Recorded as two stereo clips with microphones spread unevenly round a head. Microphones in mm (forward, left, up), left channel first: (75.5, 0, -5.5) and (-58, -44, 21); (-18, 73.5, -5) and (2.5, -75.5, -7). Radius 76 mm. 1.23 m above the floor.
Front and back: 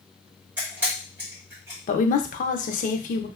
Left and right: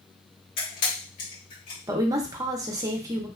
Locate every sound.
0.6 s a camera shutter: 125° left, 1.5 m
1.9 s a woman speaking: 10° right, 0.6 m